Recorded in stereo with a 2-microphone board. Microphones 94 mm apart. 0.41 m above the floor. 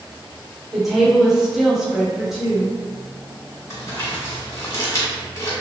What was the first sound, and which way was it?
A woman speaking, 5° right (ahead or behind).